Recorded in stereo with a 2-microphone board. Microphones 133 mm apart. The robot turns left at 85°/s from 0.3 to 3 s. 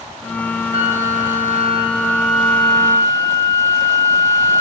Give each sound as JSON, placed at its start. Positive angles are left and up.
{"t": 0.7, "sound": "a flute", "azimuth_deg": -50, "distance_m": 4.0}